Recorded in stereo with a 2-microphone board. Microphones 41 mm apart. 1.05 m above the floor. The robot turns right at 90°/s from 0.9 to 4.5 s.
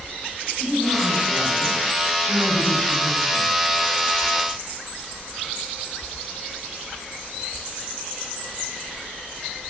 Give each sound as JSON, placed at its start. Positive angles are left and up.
{"t": 0.6, "sound": "a woman speaking", "azimuth_deg": -165, "distance_m": 6.0}